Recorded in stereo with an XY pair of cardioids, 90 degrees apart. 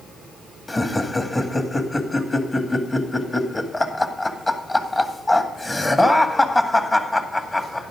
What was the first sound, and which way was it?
Laughter, 25° left.